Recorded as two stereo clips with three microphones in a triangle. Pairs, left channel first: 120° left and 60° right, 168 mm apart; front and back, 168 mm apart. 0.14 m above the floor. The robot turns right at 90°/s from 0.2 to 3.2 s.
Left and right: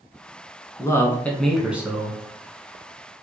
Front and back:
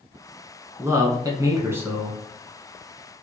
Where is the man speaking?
140° left, 1.1 m; by 2.2 s 90° right, 1.1 m.